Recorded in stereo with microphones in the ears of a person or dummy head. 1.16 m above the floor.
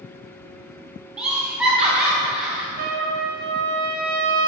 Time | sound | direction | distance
1.2 | laughter | centre (ahead or behind) | 0.6 m
2.8 | a trumpet | 45° right (ahead or behind) | 0.5 m